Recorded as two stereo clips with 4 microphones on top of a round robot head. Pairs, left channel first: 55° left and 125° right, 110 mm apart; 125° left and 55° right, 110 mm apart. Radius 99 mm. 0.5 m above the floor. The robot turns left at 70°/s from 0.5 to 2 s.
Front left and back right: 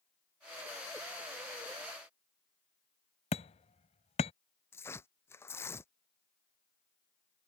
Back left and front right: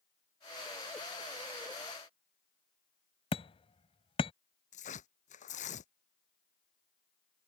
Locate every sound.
3.3 s hammering: 85° left
4.7 s tearing paper: 120° left